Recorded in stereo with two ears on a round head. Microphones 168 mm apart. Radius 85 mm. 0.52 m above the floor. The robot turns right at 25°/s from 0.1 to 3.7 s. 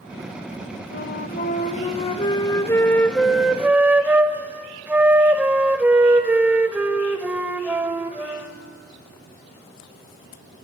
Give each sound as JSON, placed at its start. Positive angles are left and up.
{"t": 0.9, "sound": "a flute", "azimuth_deg": 120, "distance_m": 1.1}